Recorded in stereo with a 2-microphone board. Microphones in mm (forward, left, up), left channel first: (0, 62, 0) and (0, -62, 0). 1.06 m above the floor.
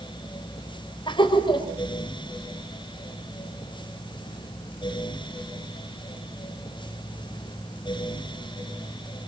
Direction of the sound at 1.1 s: 40° left (ahead or behind).